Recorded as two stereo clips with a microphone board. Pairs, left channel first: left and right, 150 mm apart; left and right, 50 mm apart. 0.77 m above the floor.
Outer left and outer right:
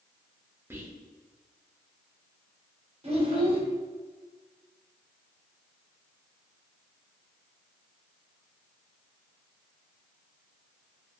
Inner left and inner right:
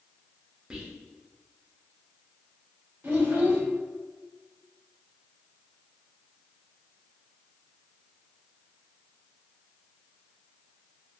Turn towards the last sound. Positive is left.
turn(degrees=-40)  # may be behind; listen again after turning